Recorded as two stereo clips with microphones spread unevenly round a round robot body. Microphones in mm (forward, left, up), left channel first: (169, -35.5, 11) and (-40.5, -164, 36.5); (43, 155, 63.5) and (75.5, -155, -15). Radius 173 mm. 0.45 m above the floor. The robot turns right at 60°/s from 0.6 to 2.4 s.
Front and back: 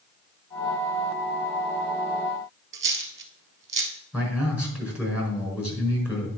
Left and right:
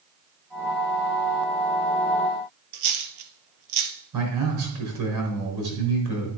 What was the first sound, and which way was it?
A dropped coin, 110° right.